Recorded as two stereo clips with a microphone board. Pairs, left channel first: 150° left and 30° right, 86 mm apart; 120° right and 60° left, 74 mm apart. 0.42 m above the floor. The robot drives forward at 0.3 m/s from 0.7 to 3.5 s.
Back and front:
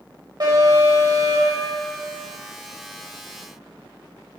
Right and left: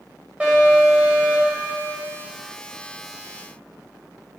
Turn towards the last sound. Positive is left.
turn(degrees=-15)